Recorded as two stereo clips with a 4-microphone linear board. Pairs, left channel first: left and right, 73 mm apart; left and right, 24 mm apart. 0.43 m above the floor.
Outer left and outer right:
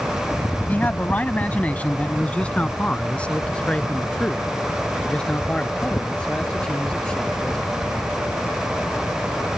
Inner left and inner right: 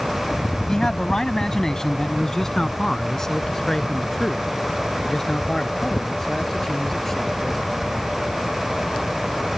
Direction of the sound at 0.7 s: 25° left (ahead or behind).